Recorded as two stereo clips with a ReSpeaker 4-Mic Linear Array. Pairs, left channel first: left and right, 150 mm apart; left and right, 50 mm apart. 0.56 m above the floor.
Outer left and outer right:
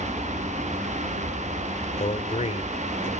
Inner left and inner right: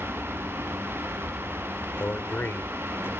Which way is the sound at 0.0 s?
10° left (ahead or behind).